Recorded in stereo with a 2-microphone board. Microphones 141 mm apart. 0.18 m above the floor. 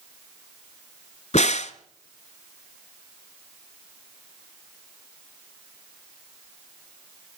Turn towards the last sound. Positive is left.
turn(degrees=55)  # may be behind; listen again after turning